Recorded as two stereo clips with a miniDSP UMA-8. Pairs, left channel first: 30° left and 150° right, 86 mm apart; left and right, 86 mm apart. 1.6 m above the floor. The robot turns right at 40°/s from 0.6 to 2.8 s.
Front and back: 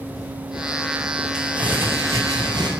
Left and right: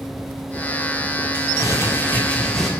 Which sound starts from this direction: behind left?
Crumpling, at 1.3 s.